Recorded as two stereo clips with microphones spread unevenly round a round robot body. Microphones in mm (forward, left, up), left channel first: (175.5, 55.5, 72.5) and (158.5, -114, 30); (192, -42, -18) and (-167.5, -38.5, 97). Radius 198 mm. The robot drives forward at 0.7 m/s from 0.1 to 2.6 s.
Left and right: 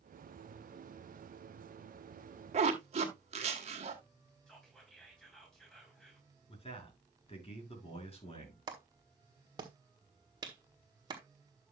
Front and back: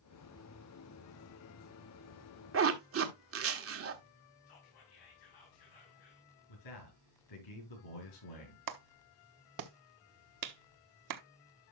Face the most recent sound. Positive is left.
turn(degrees=-140)